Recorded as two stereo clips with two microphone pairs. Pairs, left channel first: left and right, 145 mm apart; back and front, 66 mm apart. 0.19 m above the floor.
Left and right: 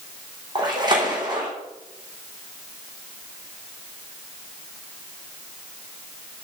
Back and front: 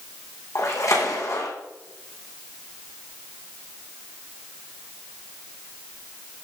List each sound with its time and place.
0.6 s a splash: 145° right, 5.5 m